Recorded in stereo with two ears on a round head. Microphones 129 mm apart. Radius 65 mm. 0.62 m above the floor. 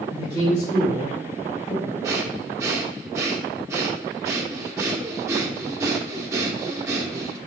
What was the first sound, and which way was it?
A man speaking, 30° left (ahead or behind).